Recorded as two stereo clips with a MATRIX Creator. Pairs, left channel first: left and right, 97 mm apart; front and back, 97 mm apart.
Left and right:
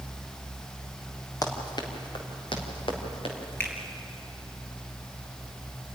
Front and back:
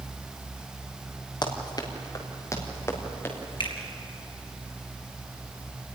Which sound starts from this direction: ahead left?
Running footsteps, at 1.4 s.